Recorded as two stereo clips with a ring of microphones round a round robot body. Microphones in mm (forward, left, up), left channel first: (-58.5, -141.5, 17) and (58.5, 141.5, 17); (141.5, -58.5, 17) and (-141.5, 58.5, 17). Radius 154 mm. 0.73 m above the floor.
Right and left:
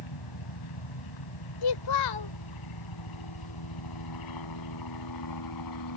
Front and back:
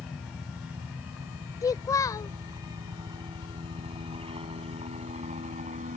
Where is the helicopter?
115° right; by 6.0 s 135° right.